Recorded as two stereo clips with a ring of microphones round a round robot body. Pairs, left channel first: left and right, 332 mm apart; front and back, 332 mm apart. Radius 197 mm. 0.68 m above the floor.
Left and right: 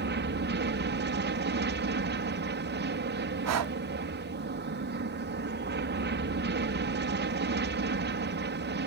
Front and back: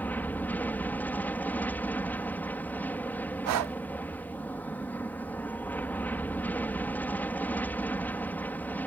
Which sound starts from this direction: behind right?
Breathing, at 3.5 s.